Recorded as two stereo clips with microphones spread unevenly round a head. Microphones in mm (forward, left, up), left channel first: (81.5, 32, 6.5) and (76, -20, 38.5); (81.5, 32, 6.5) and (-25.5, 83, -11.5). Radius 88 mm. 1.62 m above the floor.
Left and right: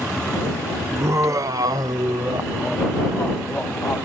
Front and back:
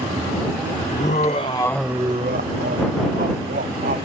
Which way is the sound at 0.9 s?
70° right.